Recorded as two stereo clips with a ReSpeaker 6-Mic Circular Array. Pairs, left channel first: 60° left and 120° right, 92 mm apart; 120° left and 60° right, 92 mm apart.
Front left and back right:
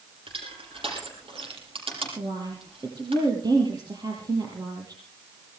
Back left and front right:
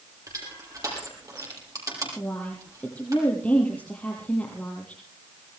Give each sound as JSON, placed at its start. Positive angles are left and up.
{"t": 0.3, "sound": "crushing", "azimuth_deg": -110, "distance_m": 6.0}
{"t": 2.2, "sound": "a woman speaking", "azimuth_deg": -165, "distance_m": 5.5}